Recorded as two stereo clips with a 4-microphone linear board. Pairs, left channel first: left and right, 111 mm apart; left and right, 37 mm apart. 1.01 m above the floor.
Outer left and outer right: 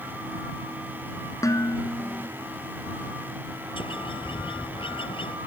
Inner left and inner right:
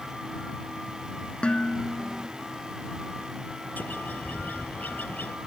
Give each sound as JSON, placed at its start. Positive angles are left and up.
{"t": 1.4, "sound": "dishes clattering", "side_deg": 30}
{"t": 3.8, "sound": "a bird", "side_deg": 55}